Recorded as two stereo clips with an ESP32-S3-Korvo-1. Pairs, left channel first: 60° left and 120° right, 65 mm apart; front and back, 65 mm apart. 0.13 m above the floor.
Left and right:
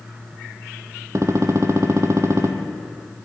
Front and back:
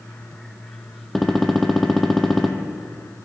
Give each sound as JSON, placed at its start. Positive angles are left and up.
{"t": 1.1, "sound": "a gunshot", "azimuth_deg": -90, "distance_m": 0.7}